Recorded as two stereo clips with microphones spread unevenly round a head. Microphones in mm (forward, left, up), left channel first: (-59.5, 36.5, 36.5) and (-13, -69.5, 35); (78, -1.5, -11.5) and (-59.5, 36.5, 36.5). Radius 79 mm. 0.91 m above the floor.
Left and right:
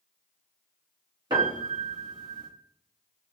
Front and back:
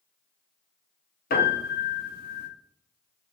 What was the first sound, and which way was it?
A piano, 5° right.